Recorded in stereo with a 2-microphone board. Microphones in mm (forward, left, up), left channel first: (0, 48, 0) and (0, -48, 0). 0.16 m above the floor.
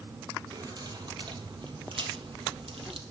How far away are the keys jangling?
About 3.5 m.